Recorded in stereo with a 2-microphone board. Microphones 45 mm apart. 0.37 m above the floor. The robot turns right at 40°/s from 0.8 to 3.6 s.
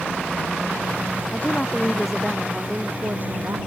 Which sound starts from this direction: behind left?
A woman speaking, at 1.3 s.